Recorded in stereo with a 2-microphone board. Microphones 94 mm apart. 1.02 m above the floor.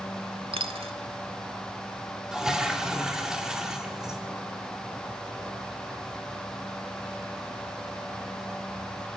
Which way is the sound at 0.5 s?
80° right.